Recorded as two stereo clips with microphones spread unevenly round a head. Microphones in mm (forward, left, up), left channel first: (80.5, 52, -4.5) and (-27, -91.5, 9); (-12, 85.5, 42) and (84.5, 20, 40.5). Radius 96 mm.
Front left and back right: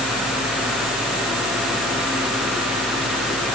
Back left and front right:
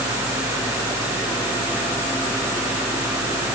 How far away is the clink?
I don't hear a clink.